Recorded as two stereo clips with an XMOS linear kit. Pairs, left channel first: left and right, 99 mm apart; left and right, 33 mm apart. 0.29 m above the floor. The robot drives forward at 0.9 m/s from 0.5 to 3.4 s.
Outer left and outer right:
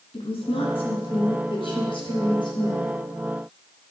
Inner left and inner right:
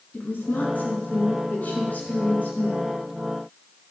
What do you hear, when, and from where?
0.1 s a woman speaking: 65° left (ahead or behind), 3 m; by 2.9 s 50° left (ahead or behind), 3.5 m